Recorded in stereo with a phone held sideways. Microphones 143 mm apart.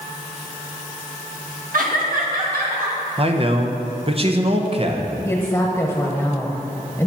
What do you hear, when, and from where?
1.7 s laughter: 70° right (ahead or behind), 1.5 m; by 3.0 s 80° right, 2.5 m
3.2 s a man speaking: 40° right (ahead or behind), 0.8 m
5.2 s a woman speaking: 15° left (ahead or behind), 0.9 m